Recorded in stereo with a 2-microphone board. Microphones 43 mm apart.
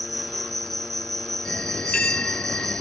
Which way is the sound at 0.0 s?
5° left (ahead or behind).